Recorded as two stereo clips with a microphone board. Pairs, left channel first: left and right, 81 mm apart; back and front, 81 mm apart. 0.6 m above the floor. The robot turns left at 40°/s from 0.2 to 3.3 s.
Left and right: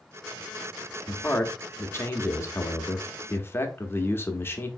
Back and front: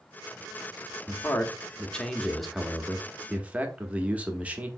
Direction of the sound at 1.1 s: 150° left.